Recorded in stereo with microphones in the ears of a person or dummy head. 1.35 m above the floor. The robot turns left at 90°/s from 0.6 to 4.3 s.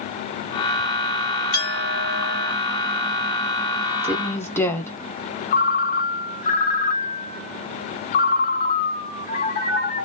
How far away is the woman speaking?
About 0.7 m.